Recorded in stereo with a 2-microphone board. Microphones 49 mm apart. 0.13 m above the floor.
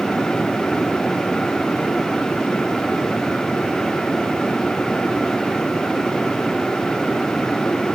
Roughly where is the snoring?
I don't hear snoring.